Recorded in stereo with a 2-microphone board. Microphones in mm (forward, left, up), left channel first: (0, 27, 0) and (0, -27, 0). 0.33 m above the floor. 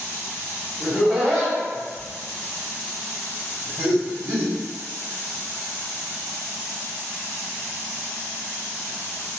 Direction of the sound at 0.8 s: 25° right (ahead or behind).